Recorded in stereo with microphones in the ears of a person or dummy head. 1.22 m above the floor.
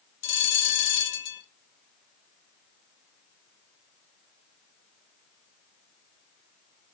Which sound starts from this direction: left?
A bell, at 0.2 s.